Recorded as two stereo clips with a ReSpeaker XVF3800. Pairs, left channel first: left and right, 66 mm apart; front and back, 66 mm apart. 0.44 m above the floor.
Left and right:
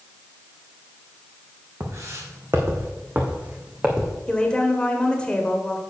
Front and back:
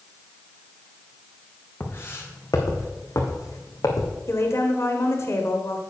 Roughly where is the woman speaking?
Ahead.